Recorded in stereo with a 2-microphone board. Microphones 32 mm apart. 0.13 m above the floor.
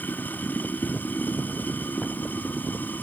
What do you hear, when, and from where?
0.0 s running water: 80° left